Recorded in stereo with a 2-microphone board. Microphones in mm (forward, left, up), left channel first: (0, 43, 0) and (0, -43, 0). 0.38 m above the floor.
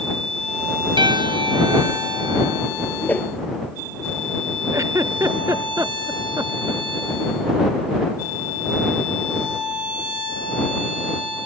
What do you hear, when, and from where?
1.0 s a piano: 80° right
3.0 s a whoosh: 25° left (ahead or behind)
4.7 s a giggle: 40° right (ahead or behind)